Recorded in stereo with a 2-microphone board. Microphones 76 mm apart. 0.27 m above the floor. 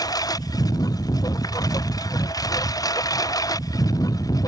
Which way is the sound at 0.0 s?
60° left (ahead or behind).